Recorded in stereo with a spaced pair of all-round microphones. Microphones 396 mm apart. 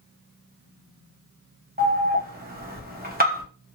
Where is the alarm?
25° right (ahead or behind), 0.7 m.